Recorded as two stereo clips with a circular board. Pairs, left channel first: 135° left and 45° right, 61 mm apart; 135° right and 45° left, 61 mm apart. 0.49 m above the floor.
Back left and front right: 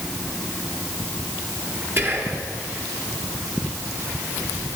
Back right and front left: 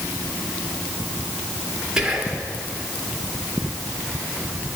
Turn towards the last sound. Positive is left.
turn(degrees=-30)